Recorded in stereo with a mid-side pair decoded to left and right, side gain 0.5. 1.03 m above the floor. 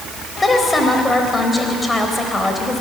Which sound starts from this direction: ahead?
A woman speaking, at 0.4 s.